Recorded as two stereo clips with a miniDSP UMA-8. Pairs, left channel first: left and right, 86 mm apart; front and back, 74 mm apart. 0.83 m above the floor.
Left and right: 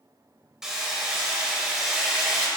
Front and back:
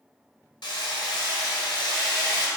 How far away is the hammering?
About 1.9 m.